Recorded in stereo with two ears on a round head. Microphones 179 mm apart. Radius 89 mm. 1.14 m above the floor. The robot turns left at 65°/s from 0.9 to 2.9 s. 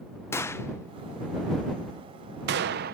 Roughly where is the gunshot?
Centre.